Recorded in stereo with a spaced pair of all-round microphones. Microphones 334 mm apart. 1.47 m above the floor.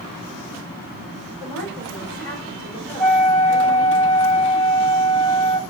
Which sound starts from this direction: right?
A woman speaking, at 1.4 s.